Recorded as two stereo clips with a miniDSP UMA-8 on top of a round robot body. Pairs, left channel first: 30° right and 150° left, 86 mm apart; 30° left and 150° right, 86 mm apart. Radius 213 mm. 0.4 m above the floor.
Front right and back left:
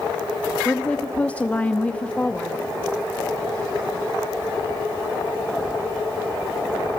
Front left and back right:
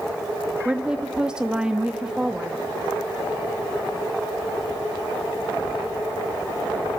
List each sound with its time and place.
0.7 s a woman speaking: 80° right, 1.2 m